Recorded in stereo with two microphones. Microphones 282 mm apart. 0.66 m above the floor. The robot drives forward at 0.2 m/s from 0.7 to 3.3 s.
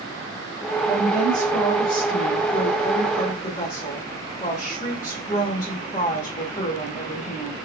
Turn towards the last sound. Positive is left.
turn(degrees=25)  # may be behind; listen again after turning